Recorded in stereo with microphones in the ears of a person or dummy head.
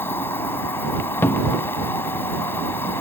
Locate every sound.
0.0 s an insect: 15° left (ahead or behind)
1.2 s a cupboard door: 10° left (ahead or behind)